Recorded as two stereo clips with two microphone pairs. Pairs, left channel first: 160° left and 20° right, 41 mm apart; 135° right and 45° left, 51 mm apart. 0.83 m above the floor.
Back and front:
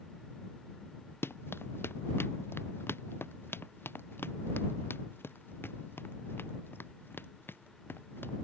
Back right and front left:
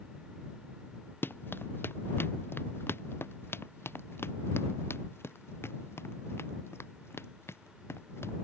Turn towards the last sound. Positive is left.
turn(degrees=-165)